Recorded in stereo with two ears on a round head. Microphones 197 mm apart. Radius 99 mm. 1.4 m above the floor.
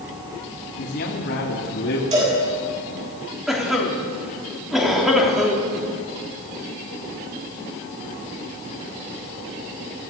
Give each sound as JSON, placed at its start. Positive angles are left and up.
{"t": 0.8, "sound": "a man speaking", "side_deg": 50, "distance_m": 3.0}
{"t": 2.1, "sound": "a cowbell", "side_deg": -30, "distance_m": 10.0}
{"t": 3.5, "sound": "a cough", "side_deg": 0, "distance_m": 3.5}